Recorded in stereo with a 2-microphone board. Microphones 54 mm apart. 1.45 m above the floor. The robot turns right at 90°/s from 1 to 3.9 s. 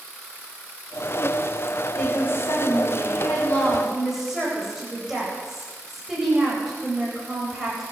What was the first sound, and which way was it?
A woman speaking, 10° left.